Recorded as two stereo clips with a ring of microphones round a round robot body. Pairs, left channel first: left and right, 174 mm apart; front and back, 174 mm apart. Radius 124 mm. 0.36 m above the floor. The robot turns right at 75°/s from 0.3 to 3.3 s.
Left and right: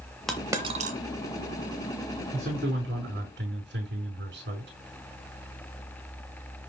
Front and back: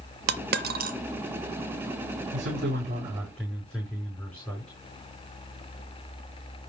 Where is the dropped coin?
Straight behind, 0.7 m; by 1.0 s 130° right, 0.7 m.